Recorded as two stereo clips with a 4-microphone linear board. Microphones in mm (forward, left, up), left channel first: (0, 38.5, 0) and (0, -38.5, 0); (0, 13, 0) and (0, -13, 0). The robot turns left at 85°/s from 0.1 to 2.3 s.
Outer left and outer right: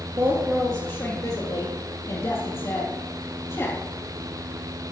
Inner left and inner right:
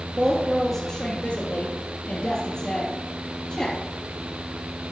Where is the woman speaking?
125° right, 4 m; by 3.8 s 55° left, 4 m.